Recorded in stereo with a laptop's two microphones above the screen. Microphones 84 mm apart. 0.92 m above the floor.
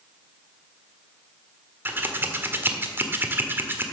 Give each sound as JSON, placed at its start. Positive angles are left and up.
{"t": 1.9, "sound": "scissors", "side_deg": -25, "distance_m": 1.6}